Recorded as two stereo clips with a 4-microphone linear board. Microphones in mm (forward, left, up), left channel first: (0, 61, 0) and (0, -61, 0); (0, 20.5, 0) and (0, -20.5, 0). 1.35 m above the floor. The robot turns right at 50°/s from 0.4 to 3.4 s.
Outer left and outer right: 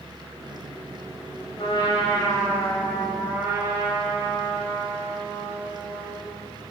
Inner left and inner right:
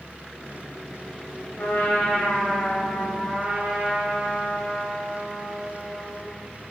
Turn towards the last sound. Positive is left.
turn(degrees=-165)